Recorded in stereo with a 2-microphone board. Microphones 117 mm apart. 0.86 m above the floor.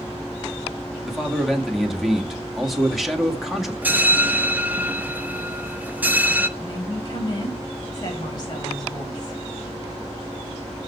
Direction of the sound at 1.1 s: Centre (ahead or behind).